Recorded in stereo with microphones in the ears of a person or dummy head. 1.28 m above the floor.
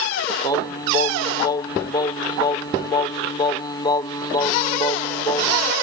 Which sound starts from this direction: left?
Singing, at 0.4 s.